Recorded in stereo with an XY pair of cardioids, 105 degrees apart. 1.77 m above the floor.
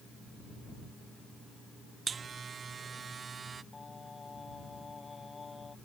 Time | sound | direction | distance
2.1 | a buzzer | 40° right | ?
3.7 | singing | 30° left | ?